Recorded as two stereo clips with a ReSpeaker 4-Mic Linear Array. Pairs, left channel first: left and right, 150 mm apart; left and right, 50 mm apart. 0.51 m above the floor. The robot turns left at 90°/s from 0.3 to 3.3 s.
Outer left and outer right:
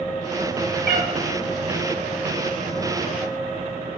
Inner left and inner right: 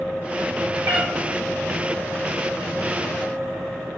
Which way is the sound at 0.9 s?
85° right.